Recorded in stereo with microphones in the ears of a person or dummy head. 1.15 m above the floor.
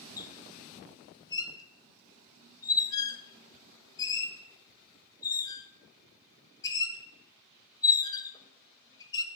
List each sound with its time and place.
0.2 s a squeak: 25° left (ahead or behind), 0.8 m